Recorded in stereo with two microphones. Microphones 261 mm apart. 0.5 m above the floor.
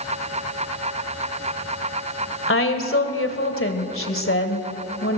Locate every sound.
2.5 s a woman speaking: 55° left (ahead or behind), 2.5 m